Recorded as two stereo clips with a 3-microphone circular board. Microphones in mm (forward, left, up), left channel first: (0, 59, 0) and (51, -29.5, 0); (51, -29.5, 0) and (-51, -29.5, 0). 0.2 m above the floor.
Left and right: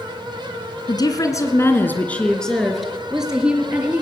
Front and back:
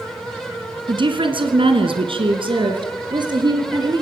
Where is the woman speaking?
155° left, 2.5 m; by 4.0 s 135° right, 4.5 m.